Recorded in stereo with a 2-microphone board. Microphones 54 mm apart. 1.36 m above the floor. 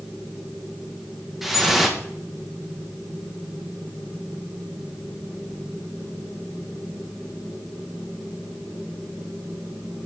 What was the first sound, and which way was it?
Dripping, centre (ahead or behind).